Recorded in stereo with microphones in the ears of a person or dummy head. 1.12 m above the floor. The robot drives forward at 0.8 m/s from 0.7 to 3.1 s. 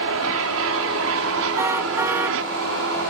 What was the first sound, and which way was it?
An aircraft, 65° right (ahead or behind).